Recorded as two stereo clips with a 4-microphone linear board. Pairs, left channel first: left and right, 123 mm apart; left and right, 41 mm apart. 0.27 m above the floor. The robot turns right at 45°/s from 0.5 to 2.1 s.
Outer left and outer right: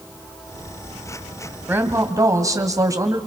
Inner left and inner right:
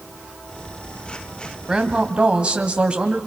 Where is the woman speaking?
15° right (ahead or behind), 1.9 m; by 3.2 s 25° right (ahead or behind), 1.9 m.